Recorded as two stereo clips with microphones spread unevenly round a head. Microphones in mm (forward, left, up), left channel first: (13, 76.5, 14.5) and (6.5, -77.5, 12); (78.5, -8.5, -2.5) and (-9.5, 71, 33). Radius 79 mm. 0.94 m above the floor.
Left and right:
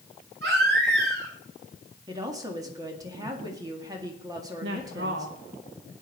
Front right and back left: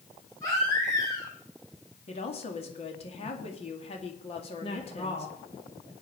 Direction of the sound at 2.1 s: 25° right.